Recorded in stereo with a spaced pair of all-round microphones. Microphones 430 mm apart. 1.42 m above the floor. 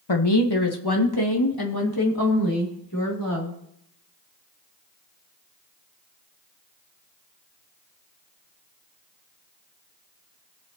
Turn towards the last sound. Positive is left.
turn(degrees=50)  # may be behind; listen again after turning